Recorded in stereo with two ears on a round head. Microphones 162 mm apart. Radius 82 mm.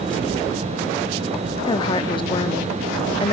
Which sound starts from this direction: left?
A woman speaking, at 1.7 s.